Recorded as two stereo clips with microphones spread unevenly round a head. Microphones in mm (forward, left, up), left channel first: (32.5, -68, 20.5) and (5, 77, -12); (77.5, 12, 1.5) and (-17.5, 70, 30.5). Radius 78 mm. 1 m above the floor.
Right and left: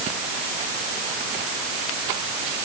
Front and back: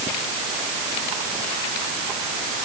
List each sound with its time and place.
Only background noise.